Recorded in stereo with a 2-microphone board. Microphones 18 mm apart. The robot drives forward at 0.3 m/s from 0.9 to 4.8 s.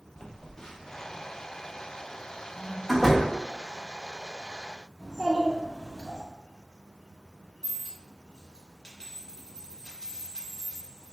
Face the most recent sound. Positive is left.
turn(degrees=50)  # may be behind; listen again after turning